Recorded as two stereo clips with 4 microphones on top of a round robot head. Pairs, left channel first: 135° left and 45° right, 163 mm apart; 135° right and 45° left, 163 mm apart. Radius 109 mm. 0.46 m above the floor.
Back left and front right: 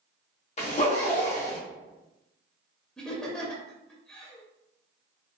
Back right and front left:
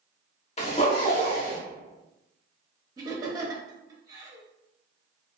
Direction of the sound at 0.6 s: Straight behind.